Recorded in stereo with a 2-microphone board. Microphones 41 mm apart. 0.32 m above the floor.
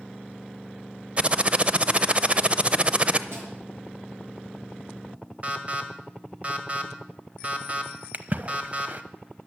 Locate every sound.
1.2 s typing on a keyboard: 30° right (ahead or behind), 0.6 m
3.3 s a snare drum: 80° right, 5 m
5.4 s an alarm: 35° right (ahead or behind), 1.7 m
8.1 s a splash: 45° right (ahead or behind), 0.7 m